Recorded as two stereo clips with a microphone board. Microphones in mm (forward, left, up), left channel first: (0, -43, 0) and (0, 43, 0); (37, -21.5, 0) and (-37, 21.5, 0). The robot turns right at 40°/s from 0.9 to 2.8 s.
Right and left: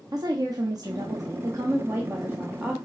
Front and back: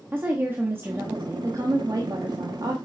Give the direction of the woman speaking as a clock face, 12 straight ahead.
9 o'clock.